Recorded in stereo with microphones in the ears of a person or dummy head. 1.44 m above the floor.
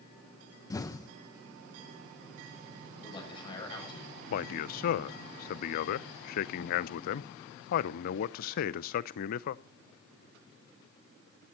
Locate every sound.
0.7 s an explosion: 20° left (ahead or behind), 1.2 m
3.0 s a man speaking: 30° left (ahead or behind), 7.5 m
4.3 s a man speaking: 55° left (ahead or behind), 0.6 m